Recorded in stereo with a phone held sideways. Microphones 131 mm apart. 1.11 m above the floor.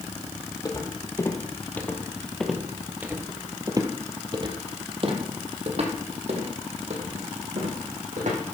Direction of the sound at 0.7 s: 30° left (ahead or behind).